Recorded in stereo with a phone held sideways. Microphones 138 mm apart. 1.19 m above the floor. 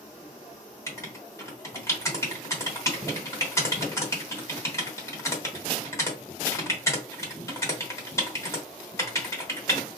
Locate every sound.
0.9 s writing: 20° left (ahead or behind), 0.9 m